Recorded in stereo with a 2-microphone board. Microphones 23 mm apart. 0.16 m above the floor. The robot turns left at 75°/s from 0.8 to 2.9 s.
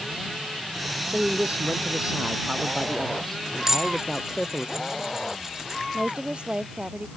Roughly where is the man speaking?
Ahead right.